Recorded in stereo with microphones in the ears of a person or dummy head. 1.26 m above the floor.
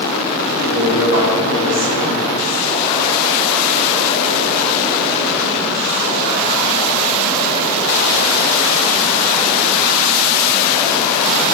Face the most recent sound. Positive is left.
turn(degrees=-65)  # may be behind; listen again after turning